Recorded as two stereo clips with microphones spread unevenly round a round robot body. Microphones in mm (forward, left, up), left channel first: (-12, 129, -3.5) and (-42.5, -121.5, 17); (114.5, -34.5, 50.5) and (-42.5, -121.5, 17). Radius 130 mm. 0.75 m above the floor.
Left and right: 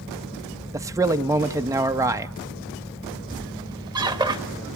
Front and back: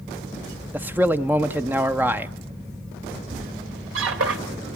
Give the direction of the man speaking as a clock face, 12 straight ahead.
6 o'clock.